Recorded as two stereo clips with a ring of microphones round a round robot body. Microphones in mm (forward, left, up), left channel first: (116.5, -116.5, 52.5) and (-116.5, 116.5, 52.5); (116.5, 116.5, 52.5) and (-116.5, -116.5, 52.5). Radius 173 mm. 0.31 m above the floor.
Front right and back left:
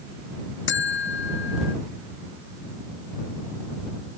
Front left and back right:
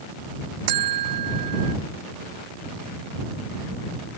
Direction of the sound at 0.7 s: 105° right.